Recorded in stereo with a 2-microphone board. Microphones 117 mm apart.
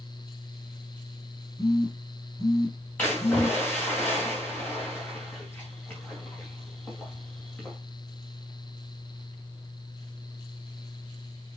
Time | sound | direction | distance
1.6 | a phone buzzing | 30° left (ahead or behind) | 3 m
3.0 | a splash | 15° left (ahead or behind) | 4 m